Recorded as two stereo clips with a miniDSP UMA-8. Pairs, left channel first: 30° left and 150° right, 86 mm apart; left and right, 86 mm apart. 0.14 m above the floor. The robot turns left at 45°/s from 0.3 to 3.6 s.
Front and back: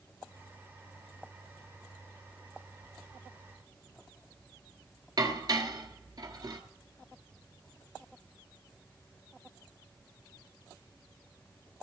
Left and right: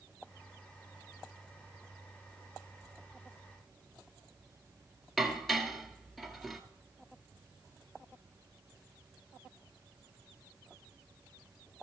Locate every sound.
5.2 s dishes clattering: straight behind, 1.6 m